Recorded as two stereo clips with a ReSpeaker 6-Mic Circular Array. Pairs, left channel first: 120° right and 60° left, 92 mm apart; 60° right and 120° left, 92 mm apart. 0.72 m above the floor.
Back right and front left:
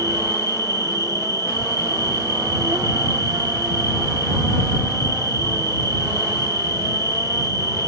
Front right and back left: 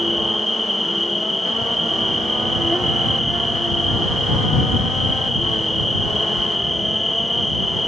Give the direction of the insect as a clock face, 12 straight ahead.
11 o'clock.